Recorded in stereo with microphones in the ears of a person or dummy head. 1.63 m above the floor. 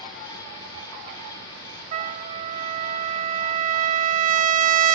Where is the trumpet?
45° right (ahead or behind), 0.7 m.